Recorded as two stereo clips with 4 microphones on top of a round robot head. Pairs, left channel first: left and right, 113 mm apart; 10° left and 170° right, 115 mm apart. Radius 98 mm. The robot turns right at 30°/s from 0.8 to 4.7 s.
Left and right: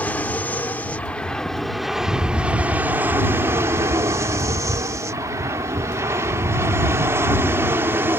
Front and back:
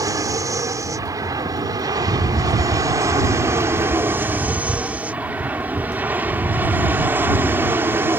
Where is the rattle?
160° left; by 8.2 s 115° right.